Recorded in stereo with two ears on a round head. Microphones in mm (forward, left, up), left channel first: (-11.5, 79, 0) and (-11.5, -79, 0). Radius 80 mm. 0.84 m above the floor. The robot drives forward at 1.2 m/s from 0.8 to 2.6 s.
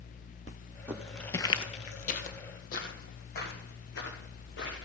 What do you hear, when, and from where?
0.9 s footsteps: 10° right (ahead or behind), 1.3 m; by 4.9 s 75° left (ahead or behind), 4 m